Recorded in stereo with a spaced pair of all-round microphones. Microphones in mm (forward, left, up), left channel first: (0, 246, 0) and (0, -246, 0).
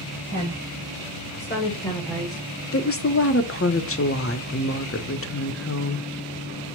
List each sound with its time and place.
0.3 s a woman speaking: 35° left (ahead or behind), 1.9 m; by 2.4 s 25° right (ahead or behind), 0.7 m
2.7 s a woman speaking: 30° left (ahead or behind), 0.5 m